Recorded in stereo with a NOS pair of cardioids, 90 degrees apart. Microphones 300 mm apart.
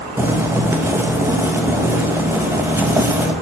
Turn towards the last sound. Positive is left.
turn(degrees=-10)